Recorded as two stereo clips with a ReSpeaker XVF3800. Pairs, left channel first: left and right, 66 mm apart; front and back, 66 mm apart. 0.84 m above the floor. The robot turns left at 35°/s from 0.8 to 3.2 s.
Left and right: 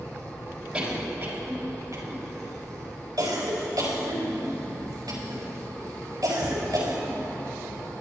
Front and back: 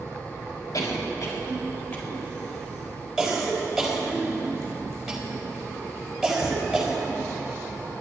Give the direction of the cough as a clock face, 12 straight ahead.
12 o'clock.